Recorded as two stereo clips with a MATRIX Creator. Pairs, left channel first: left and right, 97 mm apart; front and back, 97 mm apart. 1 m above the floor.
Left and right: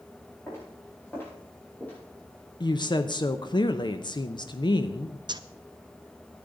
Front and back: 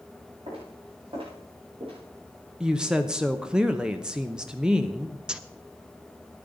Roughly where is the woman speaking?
Left.